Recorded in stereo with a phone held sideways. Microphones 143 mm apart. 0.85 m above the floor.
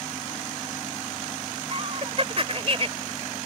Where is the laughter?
45° right (ahead or behind).